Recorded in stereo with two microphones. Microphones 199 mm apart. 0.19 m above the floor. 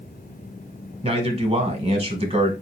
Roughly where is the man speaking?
Right.